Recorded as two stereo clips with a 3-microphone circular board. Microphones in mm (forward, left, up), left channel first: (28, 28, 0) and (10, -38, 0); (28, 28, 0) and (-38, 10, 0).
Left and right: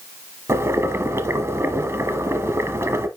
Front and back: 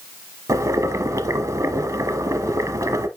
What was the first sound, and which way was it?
Boiling, 145° right.